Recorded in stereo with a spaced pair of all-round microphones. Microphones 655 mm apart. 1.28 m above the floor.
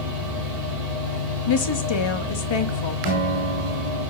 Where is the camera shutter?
I don't hear a camera shutter.